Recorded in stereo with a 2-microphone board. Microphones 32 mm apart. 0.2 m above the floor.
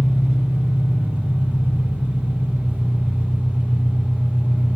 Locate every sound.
0.0 s an engine running: 75° right (ahead or behind), 3.5 m